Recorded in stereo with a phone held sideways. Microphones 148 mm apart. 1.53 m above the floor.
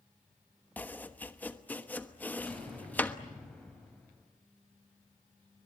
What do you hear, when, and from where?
0.8 s chopping: 10° left (ahead or behind), 1.1 m
2.5 s an explosion: 5° left (ahead or behind), 7.5 m